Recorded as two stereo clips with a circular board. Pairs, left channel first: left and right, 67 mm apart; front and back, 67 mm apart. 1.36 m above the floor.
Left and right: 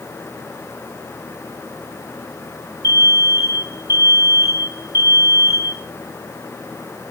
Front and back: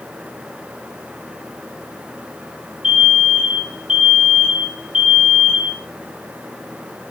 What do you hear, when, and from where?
2.8 s an alarm: 105° left, 3 m